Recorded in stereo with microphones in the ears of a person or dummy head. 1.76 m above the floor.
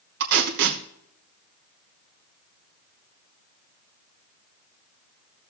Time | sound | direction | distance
0.2 | tape being pulled | 60° right (ahead or behind) | 1.7 m